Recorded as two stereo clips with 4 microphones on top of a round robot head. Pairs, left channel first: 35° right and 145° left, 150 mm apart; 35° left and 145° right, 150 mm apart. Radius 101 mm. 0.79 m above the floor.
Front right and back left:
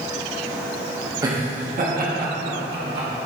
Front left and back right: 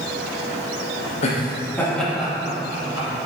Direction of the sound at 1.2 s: 80° left.